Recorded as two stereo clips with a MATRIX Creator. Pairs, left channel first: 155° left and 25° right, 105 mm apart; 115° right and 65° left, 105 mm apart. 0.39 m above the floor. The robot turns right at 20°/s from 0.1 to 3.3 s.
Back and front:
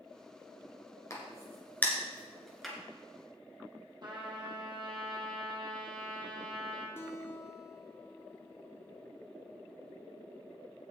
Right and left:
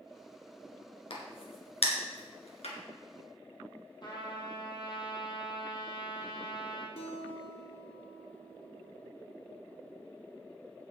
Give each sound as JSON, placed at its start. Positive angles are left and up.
{"t": 1.1, "sound": "a crack", "azimuth_deg": -145, "distance_m": 2.5}
{"t": 4.0, "sound": "a trumpet", "azimuth_deg": -65, "distance_m": 2.5}
{"t": 7.0, "sound": "a guitar", "azimuth_deg": -135, "distance_m": 1.2}